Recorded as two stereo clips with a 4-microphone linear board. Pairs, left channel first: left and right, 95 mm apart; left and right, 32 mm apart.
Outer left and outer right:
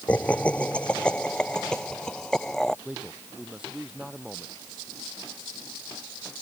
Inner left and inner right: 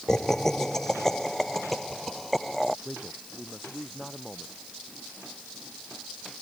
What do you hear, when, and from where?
0.1 s laughter: 15° left (ahead or behind); by 2.8 s 5° left (ahead or behind)
2.9 s a man speaking: 5° right (ahead or behind)